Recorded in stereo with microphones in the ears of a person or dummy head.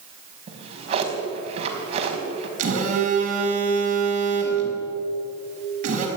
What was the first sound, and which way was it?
A drawer, 35° right (ahead or behind).